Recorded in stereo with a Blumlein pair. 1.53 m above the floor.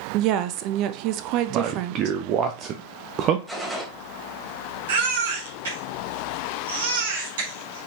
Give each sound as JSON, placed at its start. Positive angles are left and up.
{"t": 0.1, "sound": "a woman speaking", "azimuth_deg": -40, "distance_m": 0.7}
{"t": 1.5, "sound": "a man speaking", "azimuth_deg": -35, "distance_m": 0.7}
{"t": 3.5, "sound": "a gunshot", "azimuth_deg": -5, "distance_m": 2.5}
{"t": 4.9, "sound": "a baby crying", "azimuth_deg": -60, "distance_m": 2.5}